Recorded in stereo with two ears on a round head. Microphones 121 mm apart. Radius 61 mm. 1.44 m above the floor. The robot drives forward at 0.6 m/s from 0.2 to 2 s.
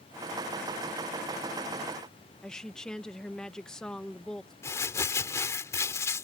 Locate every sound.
2.4 s a woman speaking: 5° left (ahead or behind)
4.6 s crumpling: 20° left (ahead or behind)